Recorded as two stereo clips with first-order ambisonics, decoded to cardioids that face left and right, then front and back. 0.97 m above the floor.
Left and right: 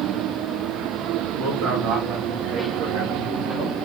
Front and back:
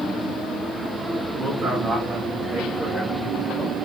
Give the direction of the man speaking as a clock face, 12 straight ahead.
4 o'clock.